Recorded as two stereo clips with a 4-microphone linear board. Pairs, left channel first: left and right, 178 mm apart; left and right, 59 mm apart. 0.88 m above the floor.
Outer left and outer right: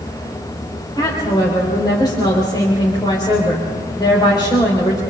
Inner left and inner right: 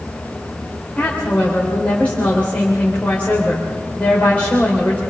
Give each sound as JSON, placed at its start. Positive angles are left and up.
{"t": 1.0, "sound": "a woman speaking", "side_deg": 20, "distance_m": 4.0}